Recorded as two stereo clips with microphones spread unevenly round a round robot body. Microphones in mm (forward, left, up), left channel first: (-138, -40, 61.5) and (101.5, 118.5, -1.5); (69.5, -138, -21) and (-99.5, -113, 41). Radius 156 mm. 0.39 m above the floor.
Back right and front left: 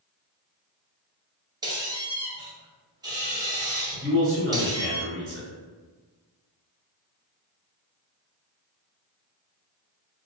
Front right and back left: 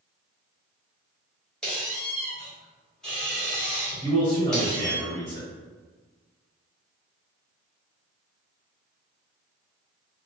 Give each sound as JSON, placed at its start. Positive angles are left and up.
{"t": 1.6, "sound": "a squeak", "azimuth_deg": 15, "distance_m": 0.8}
{"t": 4.0, "sound": "a man speaking", "azimuth_deg": 40, "distance_m": 1.8}